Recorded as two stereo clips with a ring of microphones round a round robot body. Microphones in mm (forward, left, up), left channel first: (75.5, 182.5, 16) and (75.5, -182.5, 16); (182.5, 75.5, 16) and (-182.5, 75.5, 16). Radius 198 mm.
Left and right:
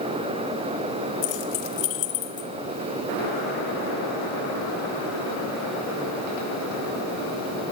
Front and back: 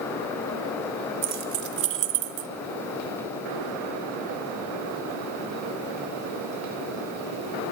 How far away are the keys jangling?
About 1.4 m.